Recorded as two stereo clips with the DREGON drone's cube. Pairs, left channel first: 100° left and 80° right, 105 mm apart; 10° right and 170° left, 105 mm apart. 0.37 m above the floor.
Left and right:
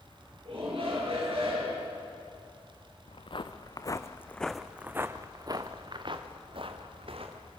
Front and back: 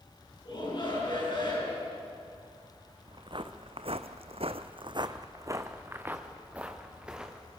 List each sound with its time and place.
0.5 s a shout: 55° right, 7 m
3.1 s footsteps: 130° left, 1.5 m; by 7.5 s 105° right, 3 m